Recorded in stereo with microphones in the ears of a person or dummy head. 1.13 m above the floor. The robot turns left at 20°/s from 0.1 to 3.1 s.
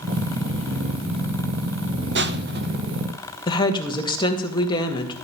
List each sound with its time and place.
2.1 s crushing: 50° right (ahead or behind), 0.7 m; by 2.8 s 40° right (ahead or behind), 0.7 m
3.5 s a woman speaking: 30° left (ahead or behind), 2.0 m